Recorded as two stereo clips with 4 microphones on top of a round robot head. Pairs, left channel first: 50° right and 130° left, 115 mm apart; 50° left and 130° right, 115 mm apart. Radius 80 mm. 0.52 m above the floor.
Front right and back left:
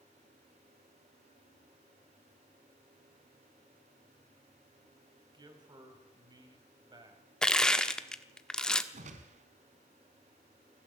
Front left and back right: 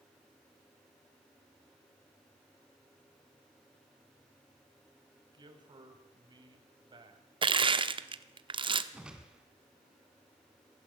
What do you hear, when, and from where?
5.3 s a man speaking: straight behind, 4.5 m
7.4 s crushing: 130° right, 1.4 m
8.9 s a whoosh: 150° left, 2 m